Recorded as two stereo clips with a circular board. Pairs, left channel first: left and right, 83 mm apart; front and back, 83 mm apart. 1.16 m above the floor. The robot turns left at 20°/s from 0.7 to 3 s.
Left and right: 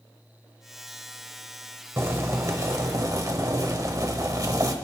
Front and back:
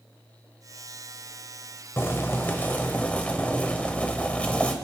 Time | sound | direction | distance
2.0 | boiling | 45° right | 1.3 m